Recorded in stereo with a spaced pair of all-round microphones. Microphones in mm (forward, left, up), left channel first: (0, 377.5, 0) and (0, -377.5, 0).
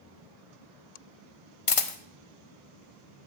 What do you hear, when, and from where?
1.7 s a camera shutter: 45° left (ahead or behind), 0.6 m